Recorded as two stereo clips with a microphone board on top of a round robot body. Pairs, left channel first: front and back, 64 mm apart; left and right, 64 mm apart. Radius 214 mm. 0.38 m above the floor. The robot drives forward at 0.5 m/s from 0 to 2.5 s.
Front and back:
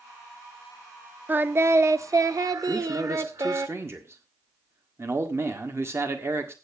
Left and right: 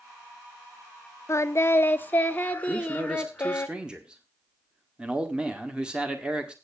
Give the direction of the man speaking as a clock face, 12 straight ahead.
5 o'clock.